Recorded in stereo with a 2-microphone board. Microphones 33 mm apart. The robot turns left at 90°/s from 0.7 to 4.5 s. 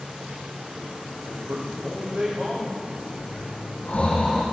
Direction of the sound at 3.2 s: 55° left (ahead or behind).